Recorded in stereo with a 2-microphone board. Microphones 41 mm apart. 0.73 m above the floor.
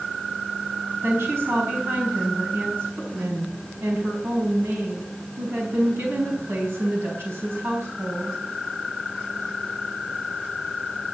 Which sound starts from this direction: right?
A woman speaking, at 1.0 s.